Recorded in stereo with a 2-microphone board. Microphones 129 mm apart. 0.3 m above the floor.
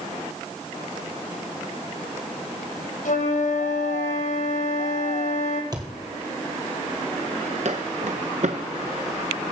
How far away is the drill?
I don't hear a drill.